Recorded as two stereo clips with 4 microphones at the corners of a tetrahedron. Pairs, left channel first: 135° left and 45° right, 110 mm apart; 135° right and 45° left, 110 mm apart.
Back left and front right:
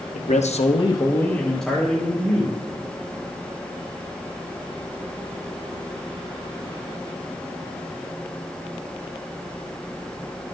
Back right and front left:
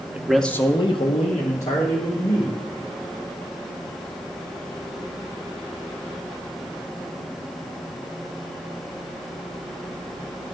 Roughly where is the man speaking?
Behind left.